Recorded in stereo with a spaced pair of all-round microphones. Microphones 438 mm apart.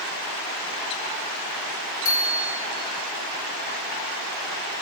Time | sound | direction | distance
2.0 | a bicycle bell | 85° left | 6 m